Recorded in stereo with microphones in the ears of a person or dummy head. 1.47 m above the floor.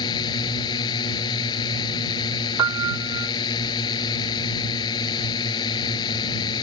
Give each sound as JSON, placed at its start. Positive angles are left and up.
{"t": 0.0, "sound": "a drone", "side_deg": 25}
{"t": 2.6, "sound": "a piano", "side_deg": -20}